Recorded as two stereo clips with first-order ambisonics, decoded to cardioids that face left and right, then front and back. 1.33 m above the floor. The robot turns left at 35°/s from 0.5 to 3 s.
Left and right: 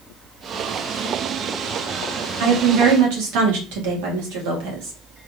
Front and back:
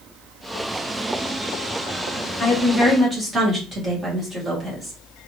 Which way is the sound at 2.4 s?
75° right.